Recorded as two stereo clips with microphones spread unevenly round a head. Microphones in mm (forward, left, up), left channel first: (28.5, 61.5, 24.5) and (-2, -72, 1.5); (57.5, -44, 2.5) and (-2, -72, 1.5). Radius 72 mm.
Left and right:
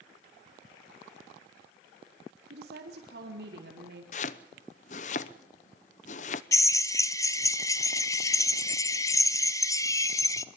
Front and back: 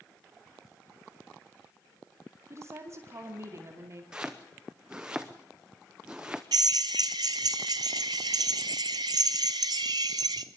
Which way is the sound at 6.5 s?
145° left.